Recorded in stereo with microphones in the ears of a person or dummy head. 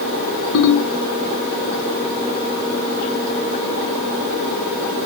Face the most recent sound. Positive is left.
turn(degrees=75)  # may be behind; listen again after turning